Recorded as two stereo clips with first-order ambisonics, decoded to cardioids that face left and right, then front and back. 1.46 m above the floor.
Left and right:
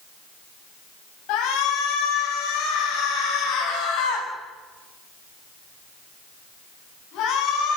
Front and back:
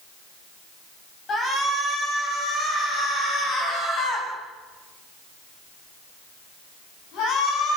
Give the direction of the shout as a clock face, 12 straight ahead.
10 o'clock.